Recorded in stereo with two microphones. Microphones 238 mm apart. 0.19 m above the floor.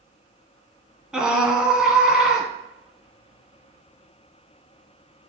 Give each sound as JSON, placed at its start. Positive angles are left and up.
{"t": 1.1, "sound": "a scream", "side_deg": -5, "distance_m": 1.3}